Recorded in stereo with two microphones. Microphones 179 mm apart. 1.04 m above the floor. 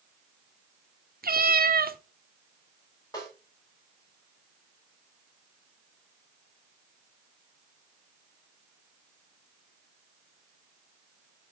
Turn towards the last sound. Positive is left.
turn(degrees=20)  # may be behind; listen again after turning